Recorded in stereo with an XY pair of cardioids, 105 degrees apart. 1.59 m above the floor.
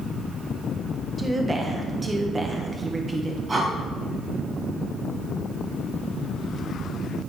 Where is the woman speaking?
25° right, 1.3 m.